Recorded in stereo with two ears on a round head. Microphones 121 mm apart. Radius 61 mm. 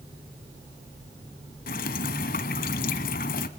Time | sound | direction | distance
1.7 | dripping | 65° left (ahead or behind) | 0.8 m